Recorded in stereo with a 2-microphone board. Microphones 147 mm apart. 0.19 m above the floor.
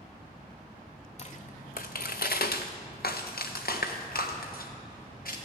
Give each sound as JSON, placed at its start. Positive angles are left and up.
{"t": 1.2, "sound": "footsteps", "side_deg": 45, "distance_m": 0.7}